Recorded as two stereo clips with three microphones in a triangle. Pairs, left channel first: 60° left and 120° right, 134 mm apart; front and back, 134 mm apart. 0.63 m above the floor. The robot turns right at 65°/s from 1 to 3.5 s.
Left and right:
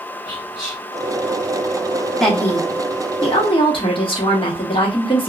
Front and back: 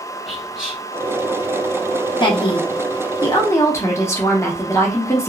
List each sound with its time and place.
0.3 s whispering: 95° right, 0.8 m
2.2 s a woman speaking: 25° right, 0.8 m; by 5.3 s 55° left, 0.8 m